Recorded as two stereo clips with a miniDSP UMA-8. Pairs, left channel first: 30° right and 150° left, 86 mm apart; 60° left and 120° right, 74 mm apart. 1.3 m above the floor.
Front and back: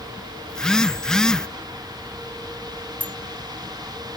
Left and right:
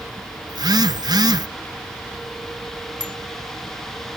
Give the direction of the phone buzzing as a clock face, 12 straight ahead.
4 o'clock.